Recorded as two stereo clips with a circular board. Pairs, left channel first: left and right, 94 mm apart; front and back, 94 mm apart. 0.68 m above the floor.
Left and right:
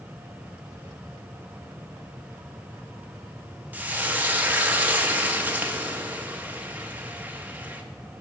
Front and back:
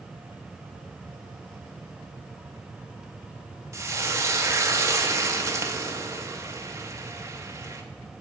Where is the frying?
150° right, 0.9 m.